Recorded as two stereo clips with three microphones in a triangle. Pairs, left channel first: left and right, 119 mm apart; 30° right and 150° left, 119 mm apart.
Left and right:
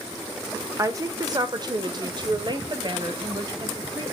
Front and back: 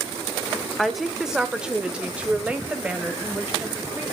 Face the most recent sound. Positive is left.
turn(degrees=-135)